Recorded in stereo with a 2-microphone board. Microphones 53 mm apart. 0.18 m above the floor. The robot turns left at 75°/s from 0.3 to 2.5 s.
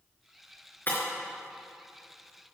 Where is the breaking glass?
40° left (ahead or behind), 4.5 m; by 1.0 s 55° left (ahead or behind), 4.5 m.